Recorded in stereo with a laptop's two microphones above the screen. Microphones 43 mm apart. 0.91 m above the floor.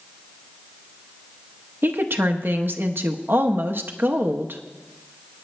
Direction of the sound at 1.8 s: 60° right (ahead or behind).